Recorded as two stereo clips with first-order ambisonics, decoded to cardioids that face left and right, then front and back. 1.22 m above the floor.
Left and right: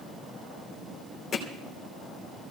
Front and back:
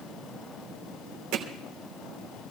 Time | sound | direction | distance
1.3 | hammering | 160° left | 3 m